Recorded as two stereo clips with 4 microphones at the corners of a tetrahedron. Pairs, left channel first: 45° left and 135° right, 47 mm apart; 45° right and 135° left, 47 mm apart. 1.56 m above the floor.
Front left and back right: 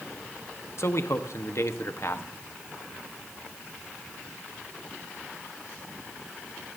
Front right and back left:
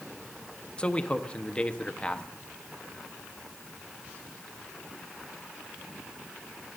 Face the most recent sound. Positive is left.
turn(degrees=20)